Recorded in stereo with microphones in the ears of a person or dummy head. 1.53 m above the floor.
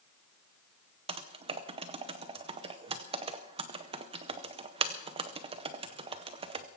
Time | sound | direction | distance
1.1 | typing on a keyboard | 35° right (ahead or behind) | 0.7 m